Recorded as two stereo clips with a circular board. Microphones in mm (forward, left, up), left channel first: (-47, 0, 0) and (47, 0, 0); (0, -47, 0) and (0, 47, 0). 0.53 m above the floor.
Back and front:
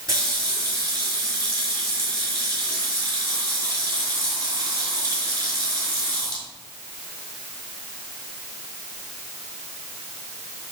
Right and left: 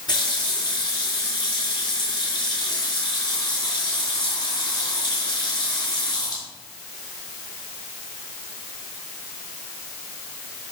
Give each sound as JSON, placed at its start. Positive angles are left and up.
{"t": 0.1, "sound": "a running tap", "azimuth_deg": -50, "distance_m": 5.5}